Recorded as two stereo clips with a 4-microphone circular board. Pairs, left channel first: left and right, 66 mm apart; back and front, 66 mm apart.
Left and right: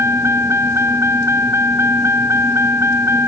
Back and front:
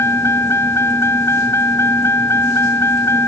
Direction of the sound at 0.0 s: 135° right.